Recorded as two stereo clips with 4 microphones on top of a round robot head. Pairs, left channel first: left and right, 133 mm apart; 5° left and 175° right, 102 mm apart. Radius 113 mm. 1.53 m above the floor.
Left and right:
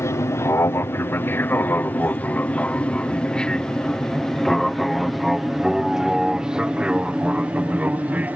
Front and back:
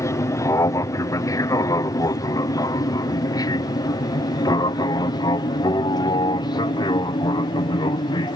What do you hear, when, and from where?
0.0 s an aircraft: 35° left; by 8.4 s 15° right